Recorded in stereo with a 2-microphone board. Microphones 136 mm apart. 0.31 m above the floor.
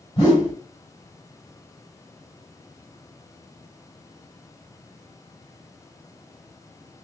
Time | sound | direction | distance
0.2 | a whoosh | 30° left (ahead or behind) | 1.7 m